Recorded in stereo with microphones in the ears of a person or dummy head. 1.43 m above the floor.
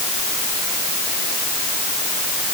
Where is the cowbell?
I don't hear a cowbell.